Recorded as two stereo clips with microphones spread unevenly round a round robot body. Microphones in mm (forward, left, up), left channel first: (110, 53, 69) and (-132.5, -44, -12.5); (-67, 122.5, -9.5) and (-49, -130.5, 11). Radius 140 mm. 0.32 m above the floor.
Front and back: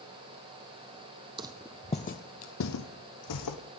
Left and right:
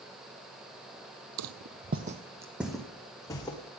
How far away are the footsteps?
About 0.6 m.